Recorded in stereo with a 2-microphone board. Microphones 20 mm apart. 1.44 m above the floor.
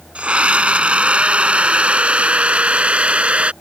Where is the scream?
80° right.